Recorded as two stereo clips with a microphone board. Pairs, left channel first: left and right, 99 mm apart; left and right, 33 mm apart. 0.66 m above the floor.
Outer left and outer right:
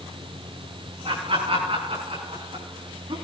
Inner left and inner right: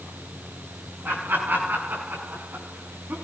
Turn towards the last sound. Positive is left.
turn(degrees=-65)  # may be behind; listen again after turning